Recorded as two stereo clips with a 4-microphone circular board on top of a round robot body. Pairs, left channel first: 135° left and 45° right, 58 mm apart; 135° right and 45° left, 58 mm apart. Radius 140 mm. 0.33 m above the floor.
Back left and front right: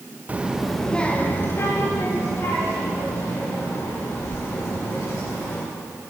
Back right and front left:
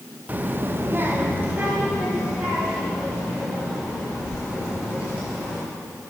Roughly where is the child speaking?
Ahead.